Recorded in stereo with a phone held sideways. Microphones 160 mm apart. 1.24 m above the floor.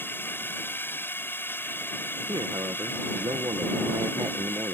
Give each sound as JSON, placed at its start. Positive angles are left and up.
{"t": 0.0, "sound": "a drone", "side_deg": 15}
{"t": 2.3, "sound": "a man speaking", "side_deg": -25}